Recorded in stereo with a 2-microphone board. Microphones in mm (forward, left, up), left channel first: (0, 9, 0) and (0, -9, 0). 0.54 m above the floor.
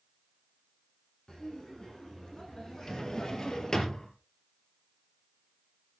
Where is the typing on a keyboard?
No typing on a keyboard in this recording.